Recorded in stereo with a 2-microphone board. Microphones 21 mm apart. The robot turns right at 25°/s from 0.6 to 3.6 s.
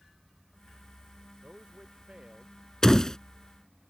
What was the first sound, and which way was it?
A man speaking, 60° right.